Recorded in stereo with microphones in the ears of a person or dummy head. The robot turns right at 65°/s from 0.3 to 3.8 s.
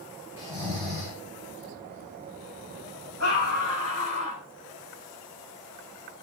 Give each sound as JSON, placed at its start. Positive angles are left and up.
{"t": 0.4, "sound": "snoring", "azimuth_deg": -160, "distance_m": 4.5}
{"t": 3.2, "sound": "a scream", "azimuth_deg": 95, "distance_m": 8.0}